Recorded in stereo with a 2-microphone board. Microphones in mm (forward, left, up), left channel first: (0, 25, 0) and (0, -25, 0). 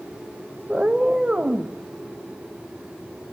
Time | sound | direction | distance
0.7 | a cat meowing | 15° right (ahead or behind) | 1.2 m